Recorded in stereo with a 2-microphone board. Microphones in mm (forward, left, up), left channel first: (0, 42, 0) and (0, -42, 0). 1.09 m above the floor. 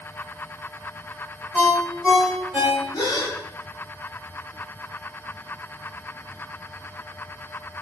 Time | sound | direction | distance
1.5 | a ringtone | 5° right (ahead or behind) | 1.4 m
2.9 | a gasp | 50° left (ahead or behind) | 0.7 m